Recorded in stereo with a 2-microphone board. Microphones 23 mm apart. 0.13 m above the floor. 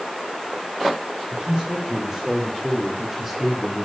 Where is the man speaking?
30° right (ahead or behind), 6.5 m; by 3.9 s 5° right (ahead or behind), 5 m.